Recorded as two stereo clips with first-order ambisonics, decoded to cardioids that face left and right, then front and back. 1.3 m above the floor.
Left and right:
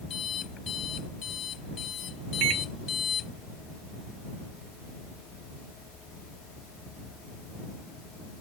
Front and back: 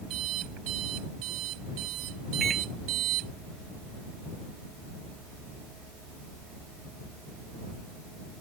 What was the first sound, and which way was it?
An alarm clock, 150° left.